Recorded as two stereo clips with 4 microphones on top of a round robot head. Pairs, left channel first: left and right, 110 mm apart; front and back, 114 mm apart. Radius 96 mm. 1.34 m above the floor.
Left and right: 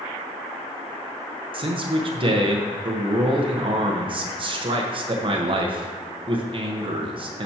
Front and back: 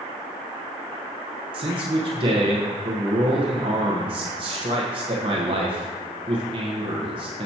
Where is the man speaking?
130° right, 1.0 m.